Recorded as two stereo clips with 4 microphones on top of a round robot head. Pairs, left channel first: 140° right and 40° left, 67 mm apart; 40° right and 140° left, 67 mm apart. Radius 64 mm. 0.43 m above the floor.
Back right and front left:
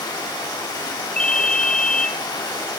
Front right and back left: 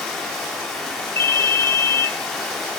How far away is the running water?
About 3.5 m.